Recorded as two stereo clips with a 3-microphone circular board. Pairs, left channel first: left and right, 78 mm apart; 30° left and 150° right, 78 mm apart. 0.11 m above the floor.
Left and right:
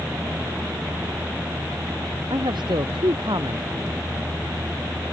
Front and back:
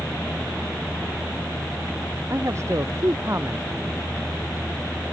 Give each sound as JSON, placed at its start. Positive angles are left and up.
{"t": 2.3, "sound": "a man speaking", "azimuth_deg": -100}